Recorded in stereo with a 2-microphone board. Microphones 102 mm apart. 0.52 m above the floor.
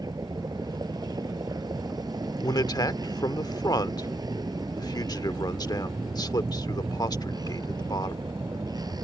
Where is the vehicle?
40° right (ahead or behind).